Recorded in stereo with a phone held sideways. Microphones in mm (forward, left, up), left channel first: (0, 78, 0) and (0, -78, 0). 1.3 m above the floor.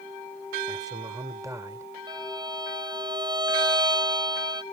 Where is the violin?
25° right (ahead or behind).